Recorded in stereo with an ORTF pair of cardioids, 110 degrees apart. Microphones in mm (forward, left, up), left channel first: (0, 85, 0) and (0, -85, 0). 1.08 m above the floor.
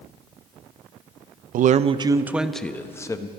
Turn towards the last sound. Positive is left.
turn(degrees=20)